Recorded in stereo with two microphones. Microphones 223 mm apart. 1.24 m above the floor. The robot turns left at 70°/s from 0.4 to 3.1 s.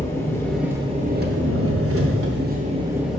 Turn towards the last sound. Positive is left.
turn(degrees=180)